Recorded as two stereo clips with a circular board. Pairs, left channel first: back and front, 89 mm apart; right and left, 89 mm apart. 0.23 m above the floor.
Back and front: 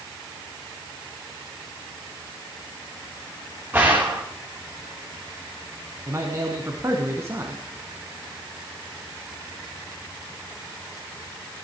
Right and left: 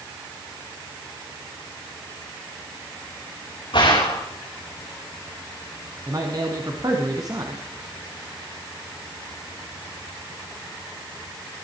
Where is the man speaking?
55° left, 1.8 m.